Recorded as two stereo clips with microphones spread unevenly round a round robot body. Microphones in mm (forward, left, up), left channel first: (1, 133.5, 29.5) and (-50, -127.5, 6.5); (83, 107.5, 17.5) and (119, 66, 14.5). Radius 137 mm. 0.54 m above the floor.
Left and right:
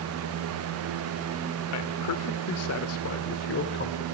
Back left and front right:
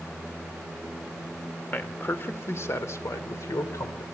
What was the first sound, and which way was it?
A man speaking, 80° left.